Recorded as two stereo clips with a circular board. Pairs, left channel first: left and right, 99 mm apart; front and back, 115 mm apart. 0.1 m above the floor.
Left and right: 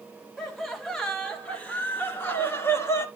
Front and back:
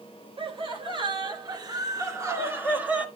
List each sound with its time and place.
0.4 s laughter: straight behind, 2.5 m; by 3.0 s 110° left, 1.7 m